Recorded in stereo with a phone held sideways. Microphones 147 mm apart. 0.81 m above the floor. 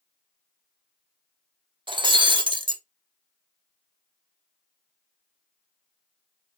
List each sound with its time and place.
1.9 s breaking glass: 35° right (ahead or behind), 0.9 m